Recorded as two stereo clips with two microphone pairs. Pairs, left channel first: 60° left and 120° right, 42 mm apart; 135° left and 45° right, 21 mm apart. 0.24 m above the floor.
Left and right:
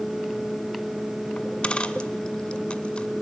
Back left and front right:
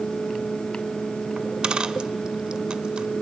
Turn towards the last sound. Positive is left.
turn(degrees=-5)